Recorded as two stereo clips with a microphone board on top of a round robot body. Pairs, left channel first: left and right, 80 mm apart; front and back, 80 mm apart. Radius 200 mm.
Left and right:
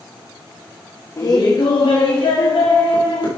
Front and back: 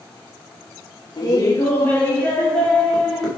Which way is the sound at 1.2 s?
40° left.